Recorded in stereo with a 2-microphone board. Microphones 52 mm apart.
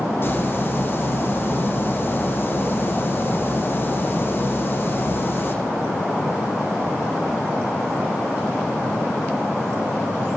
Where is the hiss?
40° left (ahead or behind), 5 m.